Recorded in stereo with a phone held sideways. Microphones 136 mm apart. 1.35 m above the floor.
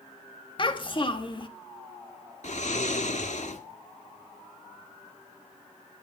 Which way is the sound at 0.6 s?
40° left (ahead or behind).